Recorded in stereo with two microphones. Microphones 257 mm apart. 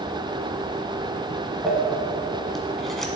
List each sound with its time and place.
1.6 s crumpling: centre (ahead or behind), 1.6 m